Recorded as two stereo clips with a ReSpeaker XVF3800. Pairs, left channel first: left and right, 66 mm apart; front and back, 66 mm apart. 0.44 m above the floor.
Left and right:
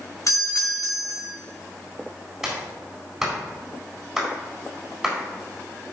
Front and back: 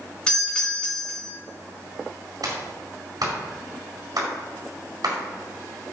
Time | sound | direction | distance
0.3 | a doorbell | 75° left | 3 m
2.4 | a clap | 175° right | 4 m